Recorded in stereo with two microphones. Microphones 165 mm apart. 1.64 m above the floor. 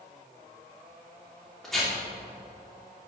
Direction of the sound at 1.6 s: Centre (ahead or behind).